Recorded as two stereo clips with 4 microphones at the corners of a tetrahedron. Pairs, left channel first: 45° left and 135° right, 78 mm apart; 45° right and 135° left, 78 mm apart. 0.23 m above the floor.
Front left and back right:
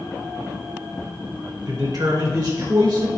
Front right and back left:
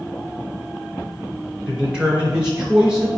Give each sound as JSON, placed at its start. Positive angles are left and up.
{"t": 1.7, "sound": "a man speaking", "azimuth_deg": -150, "distance_m": 2.5}